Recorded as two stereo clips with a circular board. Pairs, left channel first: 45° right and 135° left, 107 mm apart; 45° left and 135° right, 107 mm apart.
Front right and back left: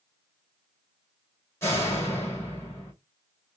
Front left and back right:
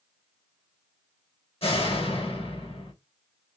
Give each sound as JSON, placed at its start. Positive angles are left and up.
{"t": 1.6, "sound": "a door slam", "azimuth_deg": 20, "distance_m": 3.0}